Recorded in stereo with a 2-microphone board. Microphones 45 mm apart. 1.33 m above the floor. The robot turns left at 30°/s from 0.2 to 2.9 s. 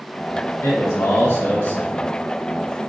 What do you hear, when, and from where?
0.6 s a man speaking: 90° left, 1.5 m; by 2.1 s 45° left, 1.5 m